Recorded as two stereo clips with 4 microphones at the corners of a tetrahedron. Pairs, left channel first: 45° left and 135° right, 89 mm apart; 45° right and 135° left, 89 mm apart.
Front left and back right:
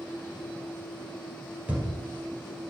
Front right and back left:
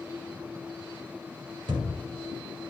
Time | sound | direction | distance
1.7 | a thud | 150° left | 1.9 m